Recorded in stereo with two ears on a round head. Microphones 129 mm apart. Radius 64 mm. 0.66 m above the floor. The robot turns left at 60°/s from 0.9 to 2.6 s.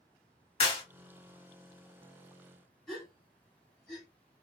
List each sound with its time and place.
0.6 s a clap: 50° left (ahead or behind), 1.5 m
2.9 s a gasp: 5° left (ahead or behind), 1.6 m